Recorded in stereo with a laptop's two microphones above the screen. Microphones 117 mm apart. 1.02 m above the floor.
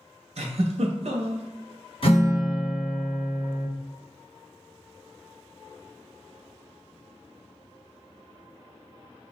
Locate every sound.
0.4 s a giggle: 65° right (ahead or behind), 0.7 m
2.0 s a guitar: 55° left (ahead or behind), 1.3 m